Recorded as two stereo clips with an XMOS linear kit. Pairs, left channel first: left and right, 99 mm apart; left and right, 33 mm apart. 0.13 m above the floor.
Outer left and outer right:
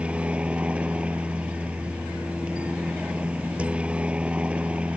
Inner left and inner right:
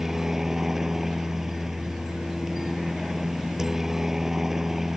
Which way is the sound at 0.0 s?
10° right (ahead or behind).